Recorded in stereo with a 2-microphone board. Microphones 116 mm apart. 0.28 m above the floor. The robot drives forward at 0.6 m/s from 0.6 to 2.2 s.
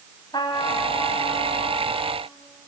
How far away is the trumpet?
About 1.8 m.